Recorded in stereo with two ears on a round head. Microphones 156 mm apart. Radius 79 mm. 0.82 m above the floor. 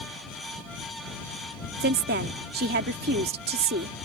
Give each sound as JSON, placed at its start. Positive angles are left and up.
{"t": 1.8, "sound": "a woman speaking", "side_deg": -65}